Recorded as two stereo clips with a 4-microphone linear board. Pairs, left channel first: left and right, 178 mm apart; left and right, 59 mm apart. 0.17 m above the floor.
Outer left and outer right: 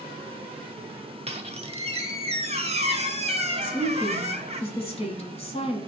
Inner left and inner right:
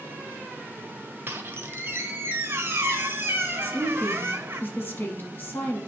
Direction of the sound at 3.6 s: 35° left (ahead or behind).